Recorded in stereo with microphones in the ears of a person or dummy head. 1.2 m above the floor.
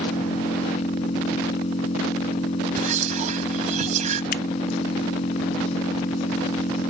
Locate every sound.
0.0 s an engine running: 35° left (ahead or behind)
2.8 s whispering: 40° right (ahead or behind)
4.3 s scissors: 50° left (ahead or behind)